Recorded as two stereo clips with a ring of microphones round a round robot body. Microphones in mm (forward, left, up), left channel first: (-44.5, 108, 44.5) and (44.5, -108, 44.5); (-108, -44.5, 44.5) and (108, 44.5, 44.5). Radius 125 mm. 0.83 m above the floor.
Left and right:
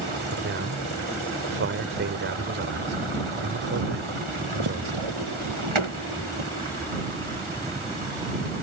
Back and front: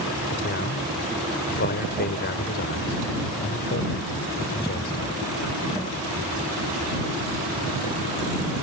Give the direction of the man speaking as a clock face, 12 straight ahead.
4 o'clock.